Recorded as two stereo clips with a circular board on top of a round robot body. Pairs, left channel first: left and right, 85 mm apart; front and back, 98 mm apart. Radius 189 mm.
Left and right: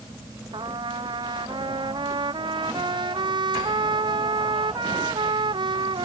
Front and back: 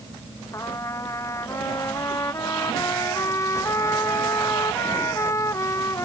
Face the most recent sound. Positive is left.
turn(degrees=-60)